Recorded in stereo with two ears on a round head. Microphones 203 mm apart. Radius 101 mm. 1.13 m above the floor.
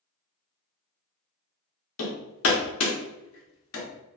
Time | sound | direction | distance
2.0 | hammering | 65° left (ahead or behind) | 1.0 m